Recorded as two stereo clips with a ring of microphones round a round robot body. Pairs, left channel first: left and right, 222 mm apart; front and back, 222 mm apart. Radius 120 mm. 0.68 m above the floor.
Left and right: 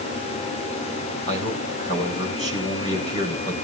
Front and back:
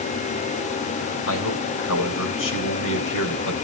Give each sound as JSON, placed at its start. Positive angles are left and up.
{"t": 1.3, "sound": "a man speaking", "azimuth_deg": 25, "distance_m": 4.5}